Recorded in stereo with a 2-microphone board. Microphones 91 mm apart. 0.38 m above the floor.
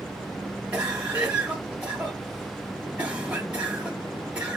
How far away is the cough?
About 1.4 m.